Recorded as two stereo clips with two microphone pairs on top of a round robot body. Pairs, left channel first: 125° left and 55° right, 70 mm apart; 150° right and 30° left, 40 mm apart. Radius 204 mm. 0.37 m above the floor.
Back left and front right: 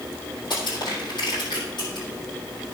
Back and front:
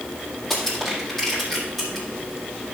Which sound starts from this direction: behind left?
Crushing, at 0.5 s.